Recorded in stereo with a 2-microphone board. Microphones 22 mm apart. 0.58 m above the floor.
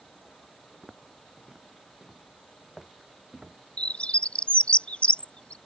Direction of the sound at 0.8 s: 25° right (ahead or behind).